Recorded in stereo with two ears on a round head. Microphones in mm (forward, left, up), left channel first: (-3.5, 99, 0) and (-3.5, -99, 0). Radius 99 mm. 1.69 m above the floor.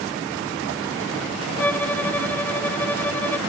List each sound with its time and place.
1.6 s a violin: 10° left (ahead or behind)